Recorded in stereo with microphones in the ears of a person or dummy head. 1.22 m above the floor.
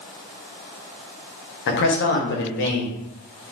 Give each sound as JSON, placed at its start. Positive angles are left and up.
{"t": 1.7, "sound": "a man speaking", "side_deg": 60, "distance_m": 0.8}